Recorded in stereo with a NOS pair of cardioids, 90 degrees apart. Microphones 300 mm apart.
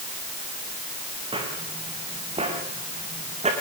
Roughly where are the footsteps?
Ahead.